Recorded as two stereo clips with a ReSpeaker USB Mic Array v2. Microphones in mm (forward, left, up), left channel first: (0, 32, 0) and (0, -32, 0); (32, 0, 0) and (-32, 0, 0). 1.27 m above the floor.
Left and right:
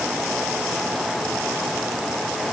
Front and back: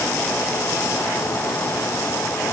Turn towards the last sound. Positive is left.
No sound to turn to.